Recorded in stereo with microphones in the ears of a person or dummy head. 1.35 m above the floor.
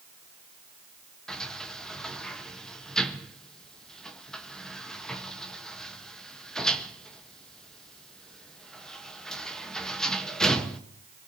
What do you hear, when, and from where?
1.3 s a sliding door: centre (ahead or behind), 1.1 m